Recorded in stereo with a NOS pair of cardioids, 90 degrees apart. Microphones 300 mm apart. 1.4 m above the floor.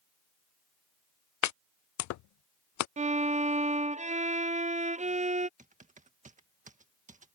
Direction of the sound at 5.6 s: 25° right.